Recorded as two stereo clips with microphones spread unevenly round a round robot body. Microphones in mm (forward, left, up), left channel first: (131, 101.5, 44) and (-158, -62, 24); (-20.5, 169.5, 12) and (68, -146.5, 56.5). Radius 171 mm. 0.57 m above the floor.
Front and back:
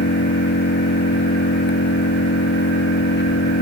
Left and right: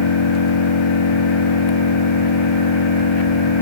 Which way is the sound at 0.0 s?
90° left.